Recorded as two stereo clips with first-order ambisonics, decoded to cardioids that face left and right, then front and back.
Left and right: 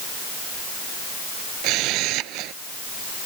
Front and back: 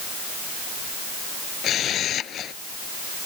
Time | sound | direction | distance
1.6 | a camera shutter | 55° right | ?